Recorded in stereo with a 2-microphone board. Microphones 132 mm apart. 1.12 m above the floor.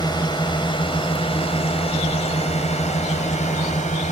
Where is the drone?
30° left (ahead or behind); by 4.1 s 65° left (ahead or behind).